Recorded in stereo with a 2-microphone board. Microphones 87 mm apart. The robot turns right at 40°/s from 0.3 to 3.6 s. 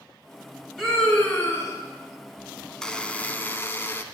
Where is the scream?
5° left, 2 m; by 1.8 s 40° left, 2 m.